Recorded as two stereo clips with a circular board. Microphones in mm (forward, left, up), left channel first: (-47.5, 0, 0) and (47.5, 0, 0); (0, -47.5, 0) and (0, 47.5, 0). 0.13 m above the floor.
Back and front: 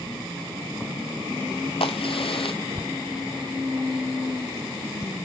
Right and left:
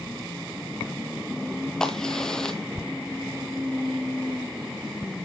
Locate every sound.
1.8 s a crack: 175° right, 0.7 m